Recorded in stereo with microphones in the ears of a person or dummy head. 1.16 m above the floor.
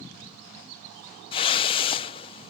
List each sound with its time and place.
1.3 s a whoosh: 35° left (ahead or behind)